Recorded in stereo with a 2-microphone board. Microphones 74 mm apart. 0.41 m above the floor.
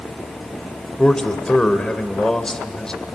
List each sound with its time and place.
1.0 s a man speaking: 10° left (ahead or behind), 1.9 m